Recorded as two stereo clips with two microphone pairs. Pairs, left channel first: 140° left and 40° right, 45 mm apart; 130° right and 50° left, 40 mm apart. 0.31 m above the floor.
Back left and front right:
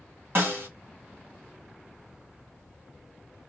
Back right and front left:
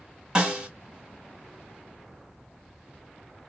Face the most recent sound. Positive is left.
turn(degrees=-15)